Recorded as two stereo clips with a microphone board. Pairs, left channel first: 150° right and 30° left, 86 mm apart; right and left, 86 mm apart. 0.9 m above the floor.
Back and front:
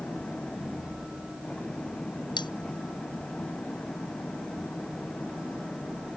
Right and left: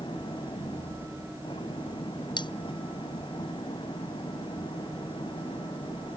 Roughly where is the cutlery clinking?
Behind right.